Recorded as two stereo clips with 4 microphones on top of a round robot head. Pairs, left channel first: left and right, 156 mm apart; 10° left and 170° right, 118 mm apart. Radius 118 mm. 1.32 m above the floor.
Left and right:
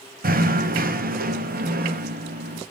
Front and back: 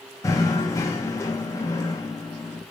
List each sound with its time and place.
0.2 s knocking: 60° right, 1.1 m